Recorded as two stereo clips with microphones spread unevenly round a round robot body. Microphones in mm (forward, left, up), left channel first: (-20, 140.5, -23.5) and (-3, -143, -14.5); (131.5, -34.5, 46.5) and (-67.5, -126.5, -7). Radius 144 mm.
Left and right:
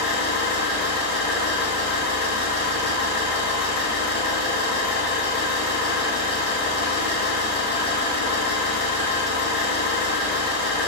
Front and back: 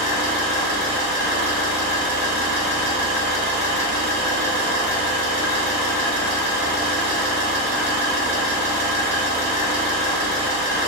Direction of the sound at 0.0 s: 125° right.